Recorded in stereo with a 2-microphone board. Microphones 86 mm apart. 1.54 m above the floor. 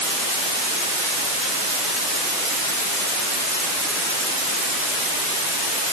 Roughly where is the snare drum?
No snare drum in this recording.